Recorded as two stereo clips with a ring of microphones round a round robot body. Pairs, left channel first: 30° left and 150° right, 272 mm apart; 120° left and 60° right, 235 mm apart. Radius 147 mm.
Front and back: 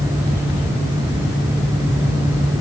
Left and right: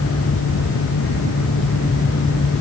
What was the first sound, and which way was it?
Only background noise.